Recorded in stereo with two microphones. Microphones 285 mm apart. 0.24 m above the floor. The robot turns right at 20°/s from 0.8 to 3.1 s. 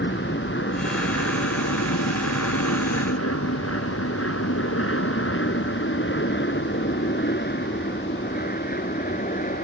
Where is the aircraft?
40° left (ahead or behind); by 9.7 s 30° left (ahead or behind).